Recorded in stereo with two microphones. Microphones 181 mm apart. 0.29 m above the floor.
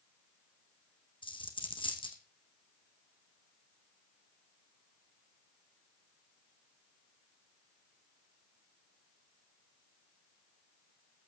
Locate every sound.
1.2 s a dropped coin: 25° left (ahead or behind), 2.5 m